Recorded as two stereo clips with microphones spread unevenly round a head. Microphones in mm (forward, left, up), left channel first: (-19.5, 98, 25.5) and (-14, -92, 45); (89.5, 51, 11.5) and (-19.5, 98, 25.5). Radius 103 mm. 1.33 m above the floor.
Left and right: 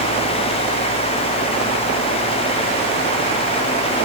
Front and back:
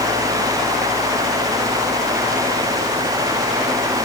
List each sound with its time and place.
Only background noise.